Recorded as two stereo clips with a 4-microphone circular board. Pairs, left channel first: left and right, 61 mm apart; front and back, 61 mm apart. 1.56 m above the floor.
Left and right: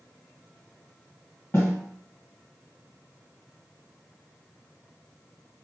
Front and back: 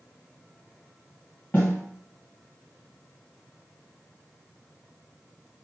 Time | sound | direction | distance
1.5 | a snare drum | 60° left | 2.5 m